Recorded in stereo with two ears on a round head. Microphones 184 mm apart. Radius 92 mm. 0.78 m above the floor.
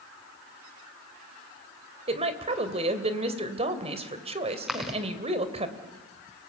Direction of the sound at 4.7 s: Centre (ahead or behind).